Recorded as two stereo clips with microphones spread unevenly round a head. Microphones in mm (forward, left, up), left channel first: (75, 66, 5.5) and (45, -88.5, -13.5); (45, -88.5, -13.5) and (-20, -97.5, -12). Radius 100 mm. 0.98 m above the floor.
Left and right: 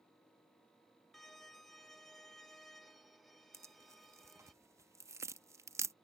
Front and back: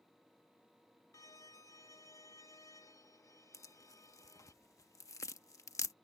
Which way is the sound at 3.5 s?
30° right.